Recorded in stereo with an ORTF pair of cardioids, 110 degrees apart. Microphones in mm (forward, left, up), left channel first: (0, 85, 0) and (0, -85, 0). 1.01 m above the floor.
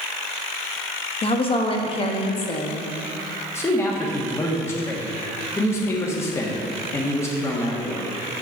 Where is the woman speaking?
35° left, 1.1 m.